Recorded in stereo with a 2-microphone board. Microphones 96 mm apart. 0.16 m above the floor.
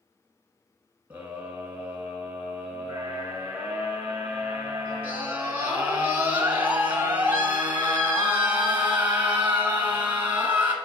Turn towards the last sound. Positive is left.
turn(degrees=-20)  # may be behind; listen again after turning